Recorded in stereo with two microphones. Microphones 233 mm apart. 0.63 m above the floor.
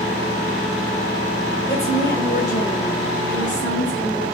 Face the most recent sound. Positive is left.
turn(degrees=55)  # may be behind; listen again after turning